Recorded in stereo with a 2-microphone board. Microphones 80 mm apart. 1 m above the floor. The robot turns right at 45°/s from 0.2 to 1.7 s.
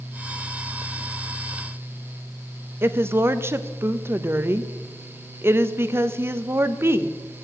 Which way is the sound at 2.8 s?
30° right (ahead or behind).